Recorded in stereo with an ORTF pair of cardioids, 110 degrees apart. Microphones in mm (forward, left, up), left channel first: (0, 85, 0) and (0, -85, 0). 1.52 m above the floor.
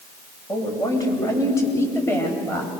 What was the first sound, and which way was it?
A woman speaking, 20° left.